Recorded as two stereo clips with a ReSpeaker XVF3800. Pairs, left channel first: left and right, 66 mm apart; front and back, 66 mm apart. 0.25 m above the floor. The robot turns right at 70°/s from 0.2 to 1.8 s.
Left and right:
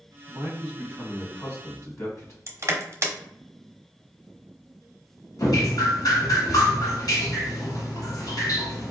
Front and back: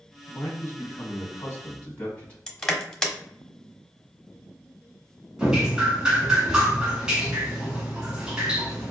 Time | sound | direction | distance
0.3 | a man speaking | 45° right | 1.7 m
2.5 | crushing | 80° right | 0.9 m
5.4 | dripping | 100° left | 1.4 m